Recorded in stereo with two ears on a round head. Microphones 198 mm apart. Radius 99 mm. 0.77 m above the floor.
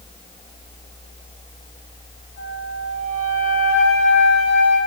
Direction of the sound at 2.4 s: 45° left (ahead or behind).